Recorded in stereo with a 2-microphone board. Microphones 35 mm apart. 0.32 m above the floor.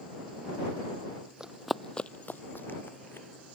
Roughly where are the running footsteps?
Right.